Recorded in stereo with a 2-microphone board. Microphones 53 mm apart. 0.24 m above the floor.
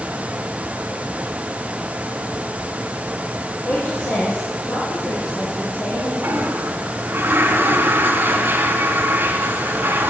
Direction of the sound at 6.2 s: 40° right (ahead or behind).